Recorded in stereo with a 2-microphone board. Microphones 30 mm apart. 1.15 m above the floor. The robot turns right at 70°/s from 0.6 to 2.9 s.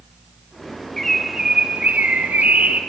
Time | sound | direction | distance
1.0 | a bird | 170° left | 1.2 m